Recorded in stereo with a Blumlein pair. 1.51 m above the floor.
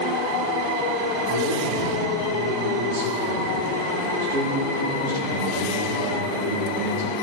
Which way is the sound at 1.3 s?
55° right.